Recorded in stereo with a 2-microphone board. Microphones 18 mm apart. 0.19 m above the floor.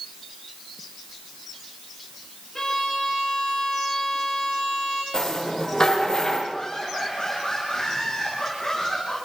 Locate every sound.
2.5 s a violin: 25° left (ahead or behind), 9.5 m
5.1 s a rattle: 40° left (ahead or behind), 6.5 m
6.5 s laughter: 40° left (ahead or behind), 9.5 m